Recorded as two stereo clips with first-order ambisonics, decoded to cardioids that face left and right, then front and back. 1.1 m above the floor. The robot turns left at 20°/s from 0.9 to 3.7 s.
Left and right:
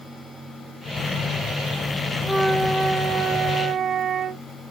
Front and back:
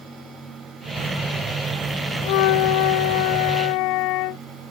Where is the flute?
Straight ahead, 0.6 m; by 4.4 s 30° right, 0.6 m.